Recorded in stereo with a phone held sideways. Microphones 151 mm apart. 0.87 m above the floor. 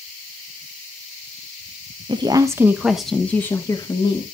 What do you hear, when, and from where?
2.1 s a woman speaking: 35° right (ahead or behind), 1.0 m; by 4.2 s 35° left (ahead or behind), 1.4 m